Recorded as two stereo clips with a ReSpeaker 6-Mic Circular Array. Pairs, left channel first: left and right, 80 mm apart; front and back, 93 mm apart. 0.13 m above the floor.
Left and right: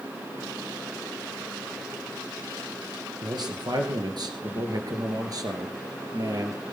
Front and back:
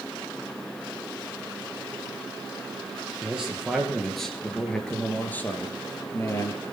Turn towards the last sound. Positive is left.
turn(degrees=-50)